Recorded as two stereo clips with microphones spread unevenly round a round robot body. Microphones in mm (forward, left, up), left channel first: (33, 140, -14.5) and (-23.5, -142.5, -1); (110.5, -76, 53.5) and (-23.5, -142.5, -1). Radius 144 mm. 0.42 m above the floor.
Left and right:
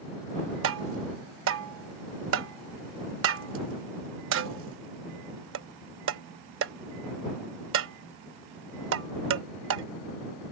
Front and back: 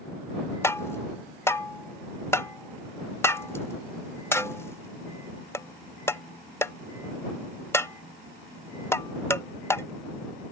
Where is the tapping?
60° right.